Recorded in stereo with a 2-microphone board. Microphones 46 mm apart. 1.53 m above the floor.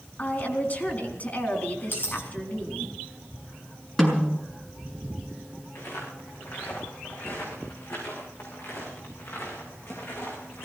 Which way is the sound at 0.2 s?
40° left (ahead or behind).